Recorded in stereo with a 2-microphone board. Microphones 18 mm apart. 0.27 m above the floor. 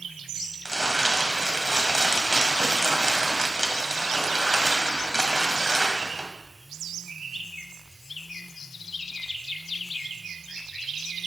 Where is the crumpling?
35° right (ahead or behind), 1.4 m.